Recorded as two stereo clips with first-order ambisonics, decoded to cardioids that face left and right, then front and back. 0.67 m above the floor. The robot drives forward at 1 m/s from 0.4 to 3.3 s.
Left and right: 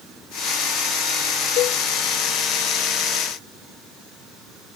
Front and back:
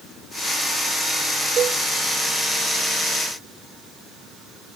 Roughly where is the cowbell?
Behind left.